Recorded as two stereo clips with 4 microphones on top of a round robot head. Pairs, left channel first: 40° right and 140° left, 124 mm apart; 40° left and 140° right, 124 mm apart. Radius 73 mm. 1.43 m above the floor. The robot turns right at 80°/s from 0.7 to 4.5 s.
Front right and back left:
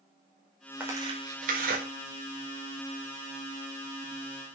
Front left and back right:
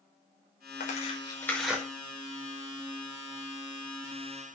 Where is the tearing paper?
60° left, 5 m; by 1.8 s 145° left, 5 m.